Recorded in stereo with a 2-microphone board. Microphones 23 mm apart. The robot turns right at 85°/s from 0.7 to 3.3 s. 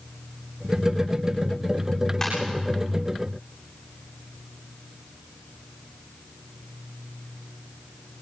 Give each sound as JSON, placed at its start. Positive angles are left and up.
{"t": 2.2, "sound": "a ringtone", "side_deg": 15, "distance_m": 9.5}